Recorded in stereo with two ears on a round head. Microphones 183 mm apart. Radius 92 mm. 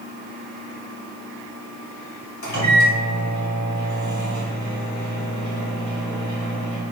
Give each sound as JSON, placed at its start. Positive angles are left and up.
{"t": 2.4, "sound": "a microwave", "side_deg": 50, "distance_m": 1.9}